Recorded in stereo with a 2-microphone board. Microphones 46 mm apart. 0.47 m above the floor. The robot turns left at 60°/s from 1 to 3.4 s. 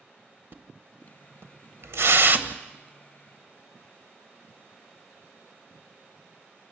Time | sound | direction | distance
0.5 | a splash | 50° right (ahead or behind) | 0.9 m